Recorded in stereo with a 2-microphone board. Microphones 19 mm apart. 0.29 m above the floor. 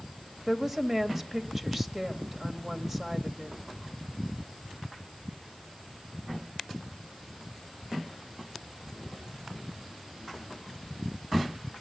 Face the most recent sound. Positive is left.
turn(degrees=-15)  # may be behind; listen again after turning